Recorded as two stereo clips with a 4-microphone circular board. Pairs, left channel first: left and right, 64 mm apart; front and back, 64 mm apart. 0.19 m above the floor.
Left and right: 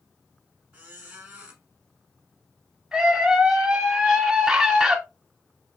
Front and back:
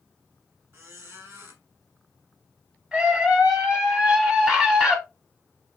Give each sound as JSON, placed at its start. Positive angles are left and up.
{"t": 0.7, "sound": "a squeak", "azimuth_deg": -150, "distance_m": 1.2}
{"t": 2.9, "sound": "a scream", "azimuth_deg": -145, "distance_m": 1.0}